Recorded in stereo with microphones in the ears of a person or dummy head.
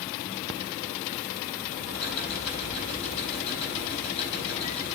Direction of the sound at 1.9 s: 30° left (ahead or behind).